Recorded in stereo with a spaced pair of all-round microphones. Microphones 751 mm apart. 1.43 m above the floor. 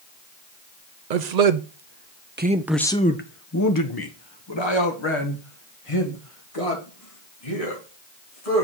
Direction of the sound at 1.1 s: 70° right (ahead or behind).